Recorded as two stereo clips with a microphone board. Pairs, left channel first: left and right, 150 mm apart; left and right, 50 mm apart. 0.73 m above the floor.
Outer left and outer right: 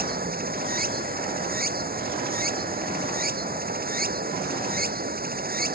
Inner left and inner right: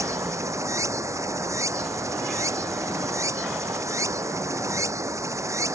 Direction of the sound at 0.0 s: 85° right.